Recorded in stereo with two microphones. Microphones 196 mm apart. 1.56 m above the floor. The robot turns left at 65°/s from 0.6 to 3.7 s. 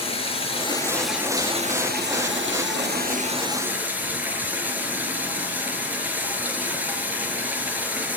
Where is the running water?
30° left, 5 m; by 8.2 s 170° right, 5 m.